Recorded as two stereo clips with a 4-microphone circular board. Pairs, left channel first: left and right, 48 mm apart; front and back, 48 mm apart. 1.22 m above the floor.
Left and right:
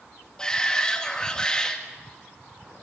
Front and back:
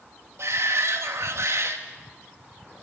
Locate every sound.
0.4 s a shout: 165° left, 2.5 m